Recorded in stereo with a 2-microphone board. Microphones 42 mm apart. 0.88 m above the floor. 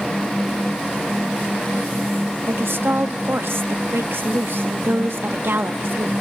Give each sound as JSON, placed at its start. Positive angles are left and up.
{"t": 2.5, "sound": "a woman speaking", "side_deg": -65, "distance_m": 1.1}